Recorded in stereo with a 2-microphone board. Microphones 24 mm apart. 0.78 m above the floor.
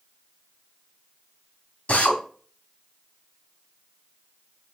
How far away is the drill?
About 3 m.